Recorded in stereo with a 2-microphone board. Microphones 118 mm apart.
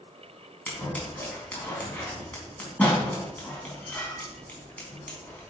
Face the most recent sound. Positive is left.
turn(degrees=10)  # may be behind; listen again after turning